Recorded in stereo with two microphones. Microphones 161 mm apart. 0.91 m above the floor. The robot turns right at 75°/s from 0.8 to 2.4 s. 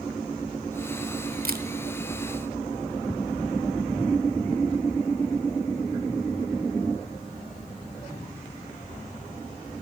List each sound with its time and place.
1.4 s a camera shutter: 65° right (ahead or behind), 0.9 m; by 1.6 s 70° right (ahead or behind), 0.9 m